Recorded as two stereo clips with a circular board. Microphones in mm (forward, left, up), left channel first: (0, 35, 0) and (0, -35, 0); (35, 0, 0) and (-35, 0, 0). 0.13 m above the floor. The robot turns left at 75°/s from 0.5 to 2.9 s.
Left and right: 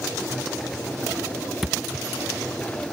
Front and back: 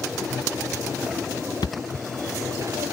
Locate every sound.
1.6 s a thud: straight ahead; by 2.1 s 35° right